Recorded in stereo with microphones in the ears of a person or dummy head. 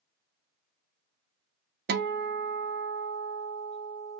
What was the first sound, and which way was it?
A guitar, 50° right (ahead or behind).